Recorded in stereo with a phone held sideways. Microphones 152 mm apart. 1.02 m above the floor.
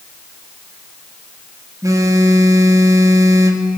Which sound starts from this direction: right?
A phone buzzing, at 1.8 s.